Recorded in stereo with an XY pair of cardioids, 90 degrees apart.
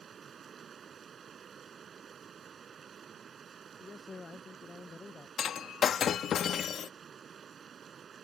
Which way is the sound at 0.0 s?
50° right.